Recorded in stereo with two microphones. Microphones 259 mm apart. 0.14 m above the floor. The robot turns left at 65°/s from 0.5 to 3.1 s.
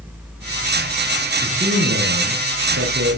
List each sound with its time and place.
1.4 s a man speaking: 20° right, 4.5 m; by 3.2 s 130° right, 4.5 m